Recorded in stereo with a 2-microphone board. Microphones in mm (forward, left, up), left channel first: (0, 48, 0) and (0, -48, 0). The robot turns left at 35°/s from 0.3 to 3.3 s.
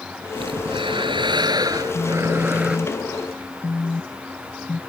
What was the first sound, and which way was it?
Breathing, 85° right.